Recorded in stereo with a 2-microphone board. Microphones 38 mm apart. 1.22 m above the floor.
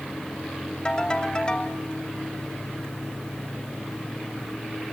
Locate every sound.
0.8 s a ringtone: 20° left (ahead or behind), 2.5 m